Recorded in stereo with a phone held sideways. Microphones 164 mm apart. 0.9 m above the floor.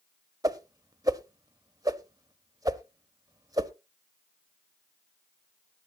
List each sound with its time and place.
0.4 s a whoosh: 20° right (ahead or behind), 0.7 m